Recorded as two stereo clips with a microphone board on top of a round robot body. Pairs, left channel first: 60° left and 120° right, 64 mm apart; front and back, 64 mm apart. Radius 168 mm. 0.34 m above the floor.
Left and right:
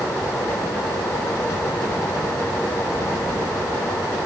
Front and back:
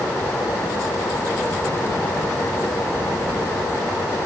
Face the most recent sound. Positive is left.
No sound to turn to.